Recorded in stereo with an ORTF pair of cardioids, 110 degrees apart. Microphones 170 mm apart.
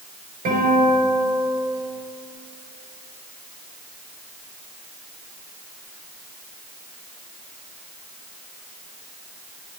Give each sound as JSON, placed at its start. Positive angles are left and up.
{"t": 0.5, "sound": "a guitar", "azimuth_deg": -60, "distance_m": 5.0}